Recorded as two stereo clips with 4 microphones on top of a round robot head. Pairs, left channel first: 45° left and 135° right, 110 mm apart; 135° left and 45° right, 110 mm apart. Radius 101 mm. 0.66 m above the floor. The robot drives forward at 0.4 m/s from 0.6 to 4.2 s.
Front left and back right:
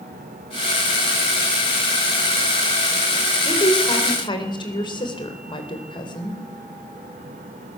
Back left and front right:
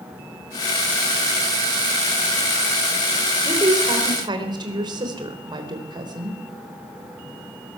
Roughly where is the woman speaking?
Ahead.